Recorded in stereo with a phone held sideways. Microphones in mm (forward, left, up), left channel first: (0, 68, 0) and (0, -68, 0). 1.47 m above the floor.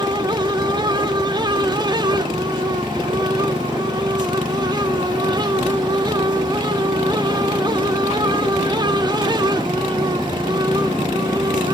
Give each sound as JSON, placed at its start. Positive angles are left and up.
{"t": 0.0, "sound": "a fan", "side_deg": -30, "distance_m": 1.2}